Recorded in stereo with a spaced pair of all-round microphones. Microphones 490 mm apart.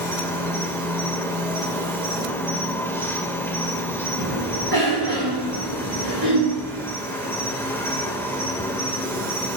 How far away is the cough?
About 8.5 m.